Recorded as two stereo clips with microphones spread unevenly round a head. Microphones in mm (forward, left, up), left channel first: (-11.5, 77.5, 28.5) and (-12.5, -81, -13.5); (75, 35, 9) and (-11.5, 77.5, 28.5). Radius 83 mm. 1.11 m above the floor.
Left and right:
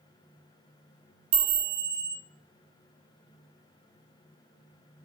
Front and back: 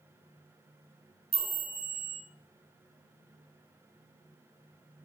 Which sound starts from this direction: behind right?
A chime, at 1.3 s.